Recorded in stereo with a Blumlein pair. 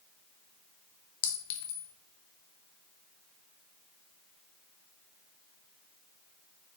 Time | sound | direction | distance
1.2 | a clink | 45° left | 0.7 m